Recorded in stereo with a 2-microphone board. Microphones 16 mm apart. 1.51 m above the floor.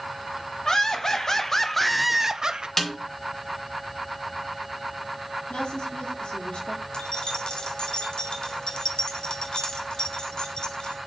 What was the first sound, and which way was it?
Laughter, 40° left (ahead or behind).